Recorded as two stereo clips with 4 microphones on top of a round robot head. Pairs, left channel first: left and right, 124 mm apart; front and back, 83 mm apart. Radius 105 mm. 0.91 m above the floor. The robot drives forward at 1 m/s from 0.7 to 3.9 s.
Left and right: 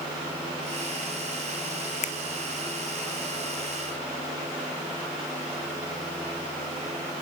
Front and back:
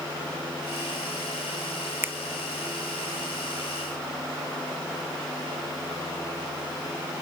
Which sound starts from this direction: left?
A finger snap, at 2.0 s.